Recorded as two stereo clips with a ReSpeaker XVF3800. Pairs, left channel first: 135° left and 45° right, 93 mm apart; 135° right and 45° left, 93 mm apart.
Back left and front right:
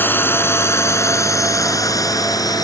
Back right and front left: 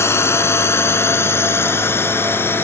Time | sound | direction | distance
0.0 | a drone | 175° right | ?